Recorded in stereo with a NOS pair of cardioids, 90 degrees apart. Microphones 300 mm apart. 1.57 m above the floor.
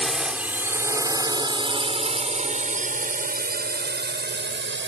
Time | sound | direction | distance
0.0 | a drone | straight ahead | ?